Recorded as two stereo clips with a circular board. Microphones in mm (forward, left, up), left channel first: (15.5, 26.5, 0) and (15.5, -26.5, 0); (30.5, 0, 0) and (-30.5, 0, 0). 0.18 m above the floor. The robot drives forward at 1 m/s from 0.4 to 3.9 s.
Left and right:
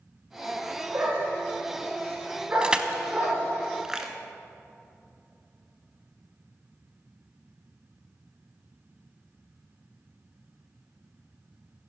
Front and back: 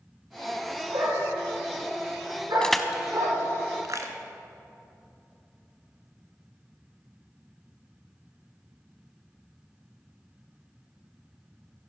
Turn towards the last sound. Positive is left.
turn(degrees=-170)